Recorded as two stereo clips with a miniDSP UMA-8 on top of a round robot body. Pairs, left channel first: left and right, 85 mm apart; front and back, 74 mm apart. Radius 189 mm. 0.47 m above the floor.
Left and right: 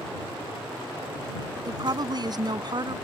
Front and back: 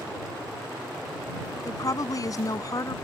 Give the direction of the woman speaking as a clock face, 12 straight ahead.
2 o'clock.